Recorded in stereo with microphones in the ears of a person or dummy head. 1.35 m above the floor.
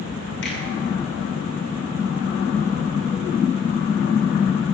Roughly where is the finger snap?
Left.